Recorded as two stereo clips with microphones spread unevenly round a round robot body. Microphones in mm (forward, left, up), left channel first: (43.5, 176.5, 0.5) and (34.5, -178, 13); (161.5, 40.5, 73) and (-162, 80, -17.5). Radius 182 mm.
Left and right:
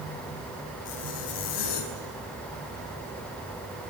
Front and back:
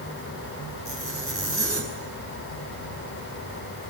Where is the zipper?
75° left, 7 m.